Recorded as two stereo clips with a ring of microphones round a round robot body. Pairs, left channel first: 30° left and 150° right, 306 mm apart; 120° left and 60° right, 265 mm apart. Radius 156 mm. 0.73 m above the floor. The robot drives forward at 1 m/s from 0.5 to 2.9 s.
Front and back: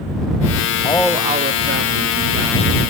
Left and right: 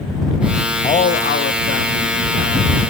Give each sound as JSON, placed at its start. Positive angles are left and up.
{"t": 0.8, "sound": "a man speaking", "azimuth_deg": 75, "distance_m": 0.6}